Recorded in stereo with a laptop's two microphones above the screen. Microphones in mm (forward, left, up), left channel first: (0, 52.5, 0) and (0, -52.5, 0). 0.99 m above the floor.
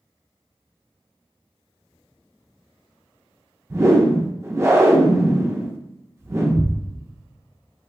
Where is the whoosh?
25° right (ahead or behind), 0.6 m.